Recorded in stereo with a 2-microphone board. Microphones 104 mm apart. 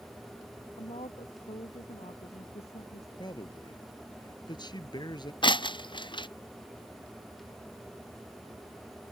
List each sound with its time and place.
0.8 s a woman speaking: 85° left; by 3.1 s 75° left (ahead or behind)
3.2 s a man speaking: 45° left (ahead or behind)
5.4 s breaking glass: 50° left (ahead or behind)